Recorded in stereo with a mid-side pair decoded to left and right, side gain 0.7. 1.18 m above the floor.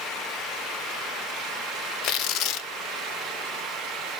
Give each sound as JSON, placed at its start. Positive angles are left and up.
{"t": 2.0, "sound": "tearing paper", "azimuth_deg": 60, "distance_m": 0.7}